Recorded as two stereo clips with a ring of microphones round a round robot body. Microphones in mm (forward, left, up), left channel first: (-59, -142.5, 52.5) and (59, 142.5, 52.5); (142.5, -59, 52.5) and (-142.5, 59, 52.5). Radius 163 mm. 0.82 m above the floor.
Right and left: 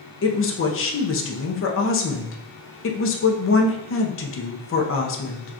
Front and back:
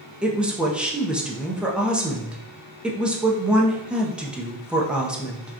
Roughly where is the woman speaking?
Behind right.